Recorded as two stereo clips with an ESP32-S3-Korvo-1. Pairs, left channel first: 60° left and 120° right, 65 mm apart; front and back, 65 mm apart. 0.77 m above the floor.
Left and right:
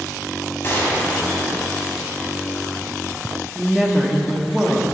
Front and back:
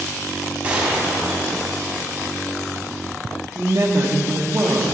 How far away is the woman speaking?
About 1.4 m.